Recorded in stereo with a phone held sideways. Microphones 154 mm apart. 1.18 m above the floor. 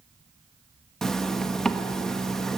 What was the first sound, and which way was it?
A zipper, 5° left (ahead or behind).